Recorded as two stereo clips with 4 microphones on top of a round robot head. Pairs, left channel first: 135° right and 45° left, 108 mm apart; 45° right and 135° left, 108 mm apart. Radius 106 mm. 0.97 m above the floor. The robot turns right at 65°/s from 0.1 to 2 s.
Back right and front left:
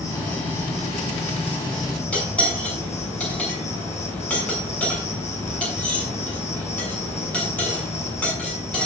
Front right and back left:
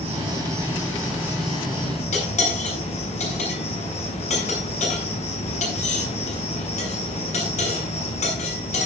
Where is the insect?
165° left, 8 m; by 8.9 s 70° right, 8 m.